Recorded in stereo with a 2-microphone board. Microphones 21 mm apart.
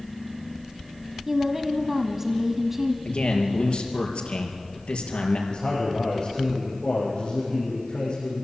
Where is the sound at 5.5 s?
40° left (ahead or behind), 7 m.